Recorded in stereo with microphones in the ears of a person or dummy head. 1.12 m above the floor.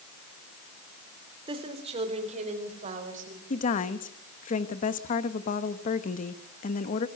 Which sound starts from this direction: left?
A woman speaking, at 3.5 s.